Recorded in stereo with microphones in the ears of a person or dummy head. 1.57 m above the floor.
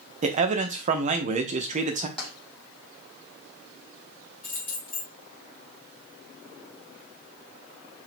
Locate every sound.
0.2 s a man speaking: 35° right (ahead or behind), 0.7 m
2.2 s tapping: 10° left (ahead or behind), 1.6 m
4.4 s keys jangling: 15° left (ahead or behind), 1.7 m